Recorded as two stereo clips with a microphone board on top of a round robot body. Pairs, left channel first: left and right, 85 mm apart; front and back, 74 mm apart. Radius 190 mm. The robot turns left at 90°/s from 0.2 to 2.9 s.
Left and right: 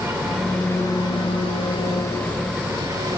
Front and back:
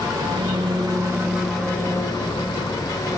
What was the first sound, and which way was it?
An engine running, 155° right.